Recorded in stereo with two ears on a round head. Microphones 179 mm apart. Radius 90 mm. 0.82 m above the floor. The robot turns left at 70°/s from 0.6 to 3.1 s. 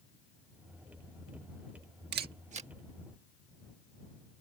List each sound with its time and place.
2.1 s a camera shutter: 55° right (ahead or behind); by 2.7 s 30° right (ahead or behind)